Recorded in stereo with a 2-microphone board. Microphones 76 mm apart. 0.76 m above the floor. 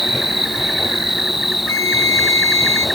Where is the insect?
5° right (ahead or behind).